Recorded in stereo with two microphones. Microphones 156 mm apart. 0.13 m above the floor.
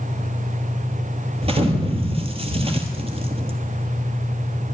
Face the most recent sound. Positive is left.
turn(degrees=-40)  # may be behind; listen again after turning